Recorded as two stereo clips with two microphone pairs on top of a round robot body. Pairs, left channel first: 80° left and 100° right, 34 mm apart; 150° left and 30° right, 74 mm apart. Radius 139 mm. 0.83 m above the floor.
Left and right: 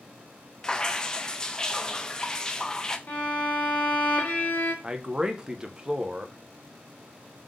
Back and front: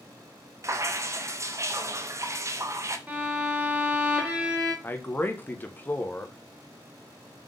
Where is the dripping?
15° left, 0.7 m.